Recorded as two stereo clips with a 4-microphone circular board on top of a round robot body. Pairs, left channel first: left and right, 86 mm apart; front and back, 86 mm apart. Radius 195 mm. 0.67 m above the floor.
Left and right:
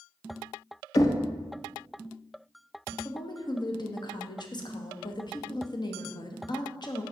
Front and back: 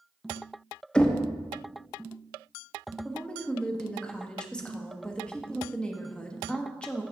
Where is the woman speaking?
75° left, 1.2 m.